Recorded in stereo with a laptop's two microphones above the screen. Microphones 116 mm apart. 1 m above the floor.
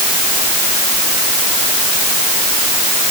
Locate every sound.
Only background noise.